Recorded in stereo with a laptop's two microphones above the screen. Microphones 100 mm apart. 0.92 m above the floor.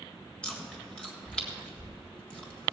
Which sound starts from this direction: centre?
Chewing, at 0.4 s.